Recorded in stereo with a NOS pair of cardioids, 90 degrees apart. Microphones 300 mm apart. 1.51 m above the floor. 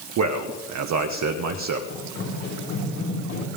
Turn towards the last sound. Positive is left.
turn(degrees=70)